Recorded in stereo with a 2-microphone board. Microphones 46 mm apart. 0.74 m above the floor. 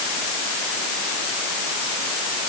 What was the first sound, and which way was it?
Only background noise.